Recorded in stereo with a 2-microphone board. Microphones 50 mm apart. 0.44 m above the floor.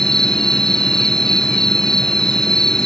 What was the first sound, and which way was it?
An insect, 10° left (ahead or behind).